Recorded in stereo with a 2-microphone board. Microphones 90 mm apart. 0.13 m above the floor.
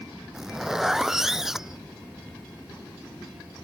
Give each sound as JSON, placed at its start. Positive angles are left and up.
{"t": 0.3, "sound": "a zipper", "side_deg": -5}